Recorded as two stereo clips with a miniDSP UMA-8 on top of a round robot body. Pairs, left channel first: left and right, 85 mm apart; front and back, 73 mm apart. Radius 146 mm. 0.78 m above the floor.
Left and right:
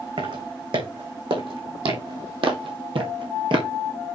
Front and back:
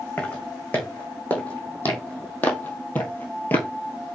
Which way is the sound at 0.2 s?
70° right.